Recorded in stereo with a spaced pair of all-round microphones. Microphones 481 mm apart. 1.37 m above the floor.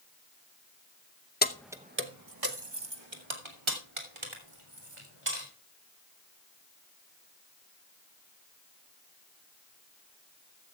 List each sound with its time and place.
1.4 s keys jangling: 20° left (ahead or behind), 0.7 m; by 5.5 s 75° right (ahead or behind), 4 m